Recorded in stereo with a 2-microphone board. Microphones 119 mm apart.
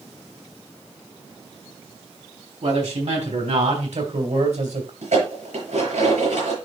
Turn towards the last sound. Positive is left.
turn(degrees=-85)